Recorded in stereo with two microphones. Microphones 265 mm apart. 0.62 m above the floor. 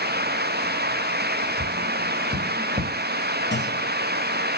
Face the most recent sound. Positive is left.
turn(degrees=45)  # may be behind; listen again after turning